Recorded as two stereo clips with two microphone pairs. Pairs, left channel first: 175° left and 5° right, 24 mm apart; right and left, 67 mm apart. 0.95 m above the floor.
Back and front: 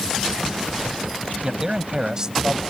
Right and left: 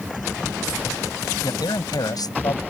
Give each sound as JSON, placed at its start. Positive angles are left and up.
{"t": 1.4, "sound": "a man speaking", "azimuth_deg": -70}